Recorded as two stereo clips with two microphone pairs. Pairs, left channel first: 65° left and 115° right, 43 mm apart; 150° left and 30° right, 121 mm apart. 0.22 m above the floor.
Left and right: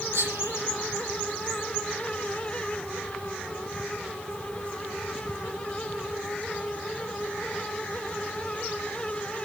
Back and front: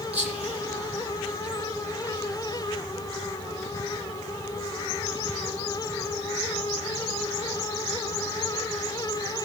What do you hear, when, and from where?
0.1 s whispering: 110° right, 8 m